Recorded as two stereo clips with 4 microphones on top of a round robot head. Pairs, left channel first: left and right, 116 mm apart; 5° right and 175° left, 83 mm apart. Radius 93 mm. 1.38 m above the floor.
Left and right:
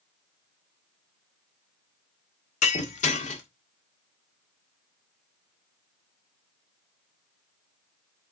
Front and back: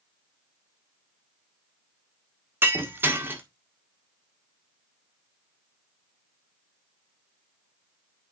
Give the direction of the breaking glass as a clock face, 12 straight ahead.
8 o'clock.